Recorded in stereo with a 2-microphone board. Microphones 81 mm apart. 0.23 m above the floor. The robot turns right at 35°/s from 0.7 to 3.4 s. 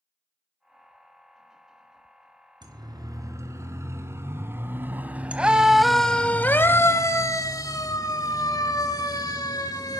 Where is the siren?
65° right (ahead or behind), 2.5 m; by 10.0 s 55° left (ahead or behind), 3 m.